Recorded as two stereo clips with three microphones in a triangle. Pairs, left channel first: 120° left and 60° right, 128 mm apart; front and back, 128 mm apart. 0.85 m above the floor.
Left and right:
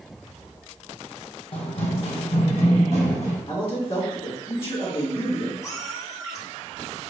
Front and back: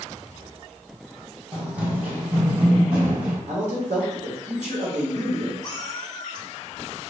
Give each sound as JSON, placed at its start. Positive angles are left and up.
{"t": 1.5, "sound": "running footsteps", "azimuth_deg": 100, "distance_m": 1.5}
{"t": 3.5, "sound": "a man speaking", "azimuth_deg": 160, "distance_m": 1.2}
{"t": 5.6, "sound": "a cat meowing", "azimuth_deg": 55, "distance_m": 0.7}